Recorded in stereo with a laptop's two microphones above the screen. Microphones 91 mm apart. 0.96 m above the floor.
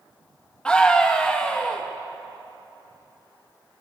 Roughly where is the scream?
Centre.